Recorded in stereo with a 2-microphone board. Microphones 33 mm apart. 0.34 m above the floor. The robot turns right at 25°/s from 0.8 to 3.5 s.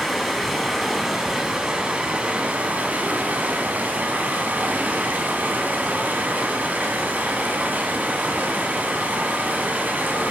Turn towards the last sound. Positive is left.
turn(degrees=-110)